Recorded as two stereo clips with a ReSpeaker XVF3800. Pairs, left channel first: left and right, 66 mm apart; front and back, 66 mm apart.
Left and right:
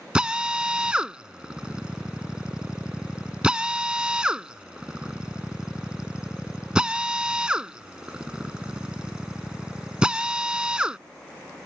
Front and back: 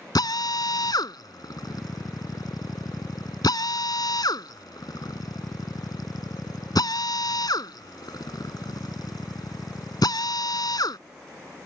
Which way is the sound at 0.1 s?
15° right.